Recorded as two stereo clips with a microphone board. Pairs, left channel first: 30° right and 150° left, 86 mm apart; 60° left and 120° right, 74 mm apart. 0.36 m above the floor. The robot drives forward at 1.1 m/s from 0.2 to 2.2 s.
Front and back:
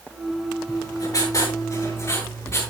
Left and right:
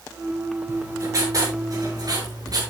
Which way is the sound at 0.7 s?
70° right.